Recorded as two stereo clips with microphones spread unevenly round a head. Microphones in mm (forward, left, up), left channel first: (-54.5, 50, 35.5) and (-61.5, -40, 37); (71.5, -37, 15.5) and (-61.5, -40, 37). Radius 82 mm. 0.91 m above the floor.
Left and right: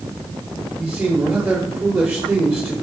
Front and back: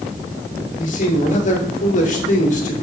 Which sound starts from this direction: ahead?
A man speaking, at 0.8 s.